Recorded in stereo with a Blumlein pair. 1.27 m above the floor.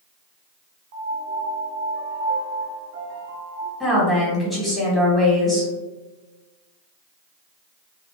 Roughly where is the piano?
Ahead right.